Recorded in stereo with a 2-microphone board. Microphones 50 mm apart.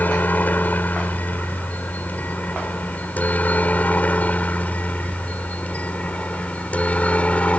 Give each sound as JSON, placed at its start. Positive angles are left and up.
{"t": 0.0, "sound": "a helicopter", "side_deg": 35}